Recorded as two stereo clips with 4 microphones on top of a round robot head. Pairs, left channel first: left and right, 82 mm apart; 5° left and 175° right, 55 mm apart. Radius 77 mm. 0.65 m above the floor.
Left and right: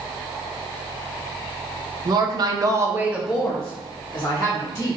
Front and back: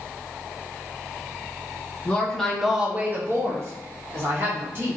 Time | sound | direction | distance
2.0 | a woman speaking | 65° right | 1.0 m